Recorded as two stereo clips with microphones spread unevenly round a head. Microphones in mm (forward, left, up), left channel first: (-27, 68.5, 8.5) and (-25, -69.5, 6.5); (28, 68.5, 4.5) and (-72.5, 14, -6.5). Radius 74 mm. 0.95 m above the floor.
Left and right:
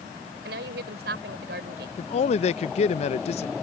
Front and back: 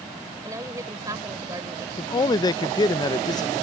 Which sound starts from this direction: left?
A man speaking, at 2.0 s.